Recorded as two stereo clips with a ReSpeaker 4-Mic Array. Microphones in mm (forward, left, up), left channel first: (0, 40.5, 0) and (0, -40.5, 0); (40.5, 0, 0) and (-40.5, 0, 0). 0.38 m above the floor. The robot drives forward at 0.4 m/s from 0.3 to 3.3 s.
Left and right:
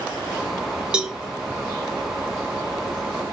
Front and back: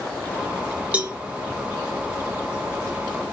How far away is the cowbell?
About 0.8 m.